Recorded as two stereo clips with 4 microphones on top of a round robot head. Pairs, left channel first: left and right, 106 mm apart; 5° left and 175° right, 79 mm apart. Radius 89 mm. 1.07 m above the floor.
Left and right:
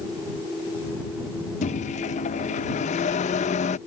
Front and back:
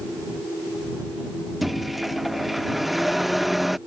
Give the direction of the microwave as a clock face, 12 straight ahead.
9 o'clock.